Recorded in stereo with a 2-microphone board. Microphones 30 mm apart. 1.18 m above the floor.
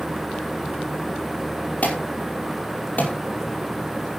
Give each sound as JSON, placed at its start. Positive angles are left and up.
{"t": 1.8, "sound": "an alarm", "side_deg": 65, "distance_m": 5.5}